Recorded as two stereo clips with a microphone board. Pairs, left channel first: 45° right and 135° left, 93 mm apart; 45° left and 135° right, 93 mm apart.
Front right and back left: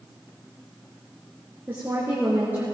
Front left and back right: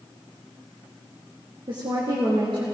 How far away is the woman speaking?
About 2.5 m.